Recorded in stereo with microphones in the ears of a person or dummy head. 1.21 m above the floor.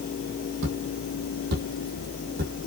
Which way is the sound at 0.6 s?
65° right (ahead or behind).